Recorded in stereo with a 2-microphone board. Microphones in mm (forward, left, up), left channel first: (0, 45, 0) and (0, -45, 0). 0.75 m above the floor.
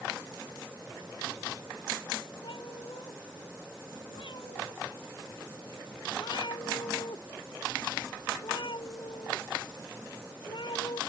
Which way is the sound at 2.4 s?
65° left (ahead or behind).